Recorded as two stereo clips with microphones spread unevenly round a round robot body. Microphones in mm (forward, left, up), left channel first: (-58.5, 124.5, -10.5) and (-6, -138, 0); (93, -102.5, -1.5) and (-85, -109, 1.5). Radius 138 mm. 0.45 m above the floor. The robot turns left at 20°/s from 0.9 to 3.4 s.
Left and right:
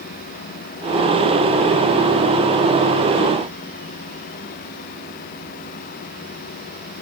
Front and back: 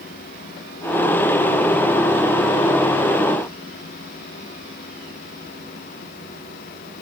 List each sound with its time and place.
Only background noise.